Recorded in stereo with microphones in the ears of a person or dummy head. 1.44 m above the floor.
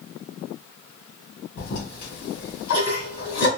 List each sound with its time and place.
1.6 s a toilet flushing: 50° left (ahead or behind), 2 m